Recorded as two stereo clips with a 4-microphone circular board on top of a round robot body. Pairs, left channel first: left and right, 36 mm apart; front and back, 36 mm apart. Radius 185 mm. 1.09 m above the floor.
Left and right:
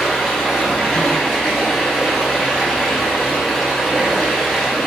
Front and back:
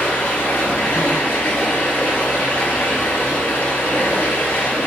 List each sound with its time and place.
0.0 s running water: 5° left, 5.5 m